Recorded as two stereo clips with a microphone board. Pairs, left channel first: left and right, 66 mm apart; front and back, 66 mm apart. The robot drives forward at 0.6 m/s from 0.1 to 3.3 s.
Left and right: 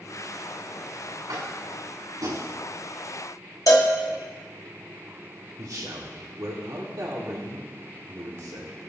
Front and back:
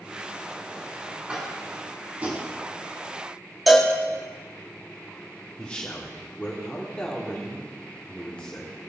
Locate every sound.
1.3 s tapping: 105° right, 3 m; by 2.5 s 115° right, 3 m
3.7 s a cowbell: 90° left, 1.5 m
5.6 s a man speaking: 70° right, 1.8 m